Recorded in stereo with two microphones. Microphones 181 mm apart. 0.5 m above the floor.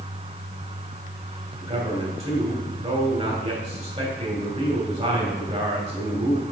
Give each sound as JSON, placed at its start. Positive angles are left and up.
{"t": 1.6, "sound": "a man speaking", "side_deg": -35, "distance_m": 3.0}